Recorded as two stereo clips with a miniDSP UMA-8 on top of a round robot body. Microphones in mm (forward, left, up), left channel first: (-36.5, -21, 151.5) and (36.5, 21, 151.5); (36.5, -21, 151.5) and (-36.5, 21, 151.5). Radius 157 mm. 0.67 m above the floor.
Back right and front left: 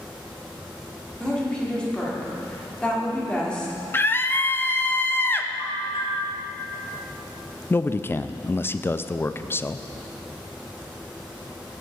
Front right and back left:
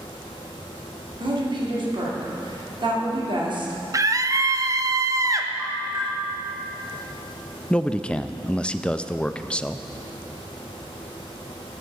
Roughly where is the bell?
Behind right.